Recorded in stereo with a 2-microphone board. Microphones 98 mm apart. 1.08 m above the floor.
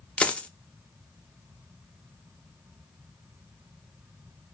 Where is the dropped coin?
15° left (ahead or behind), 0.5 m.